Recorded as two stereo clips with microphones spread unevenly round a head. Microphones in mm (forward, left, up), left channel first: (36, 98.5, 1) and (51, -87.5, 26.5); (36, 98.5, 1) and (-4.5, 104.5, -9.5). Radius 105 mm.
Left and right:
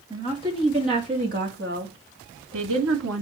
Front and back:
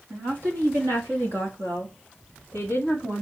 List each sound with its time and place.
0.1 s a woman speaking: 160° right, 2.5 m; by 3.2 s 110° right, 2.5 m